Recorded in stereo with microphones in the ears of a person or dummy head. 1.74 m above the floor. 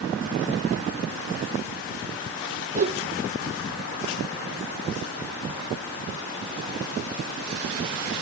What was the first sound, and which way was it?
A whoosh, 45° right (ahead or behind).